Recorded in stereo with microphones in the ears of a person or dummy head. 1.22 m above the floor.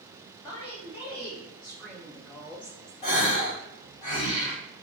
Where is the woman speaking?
30° left (ahead or behind), 1.9 m; by 2.9 s 15° right (ahead or behind), 0.8 m.